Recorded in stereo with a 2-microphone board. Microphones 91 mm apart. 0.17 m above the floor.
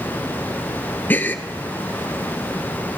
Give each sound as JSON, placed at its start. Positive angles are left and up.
{"t": 1.1, "sound": "a gasp", "side_deg": 20, "distance_m": 0.9}